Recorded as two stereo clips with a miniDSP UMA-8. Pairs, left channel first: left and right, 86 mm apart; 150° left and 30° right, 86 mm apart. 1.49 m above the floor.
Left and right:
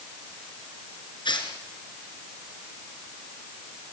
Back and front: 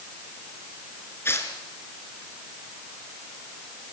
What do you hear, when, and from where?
1.2 s tearing paper: 90° left, 4 m